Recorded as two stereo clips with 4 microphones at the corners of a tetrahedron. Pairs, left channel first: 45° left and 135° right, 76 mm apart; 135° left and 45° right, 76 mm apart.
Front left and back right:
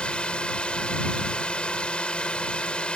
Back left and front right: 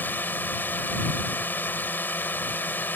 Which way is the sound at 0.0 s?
105° left.